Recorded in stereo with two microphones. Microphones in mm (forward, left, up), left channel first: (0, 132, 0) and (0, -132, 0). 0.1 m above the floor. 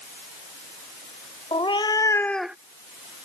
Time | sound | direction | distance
1.5 | a cat meowing | 20° left (ahead or behind) | ?